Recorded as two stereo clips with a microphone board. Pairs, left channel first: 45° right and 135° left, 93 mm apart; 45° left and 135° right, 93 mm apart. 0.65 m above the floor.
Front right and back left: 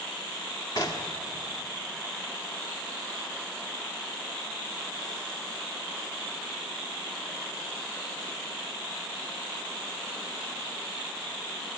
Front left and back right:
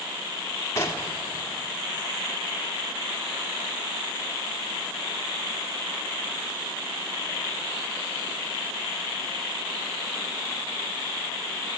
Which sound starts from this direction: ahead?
Knocking, at 0.8 s.